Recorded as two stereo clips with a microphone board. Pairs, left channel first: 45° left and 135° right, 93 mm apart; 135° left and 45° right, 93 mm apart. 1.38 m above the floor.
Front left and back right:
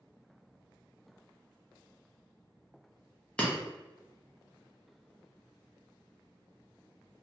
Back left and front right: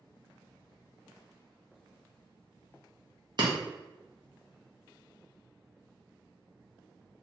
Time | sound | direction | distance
3.4 | breaking glass | 30° right | 0.9 m